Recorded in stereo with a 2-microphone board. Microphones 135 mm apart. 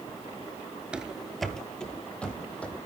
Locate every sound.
0.9 s running footsteps: 10° right (ahead or behind), 0.6 m; by 2.8 s 10° left (ahead or behind), 1.9 m